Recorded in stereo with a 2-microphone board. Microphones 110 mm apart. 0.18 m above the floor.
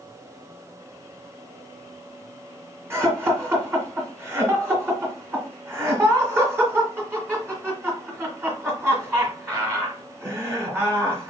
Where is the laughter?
25° right (ahead or behind), 1.7 m.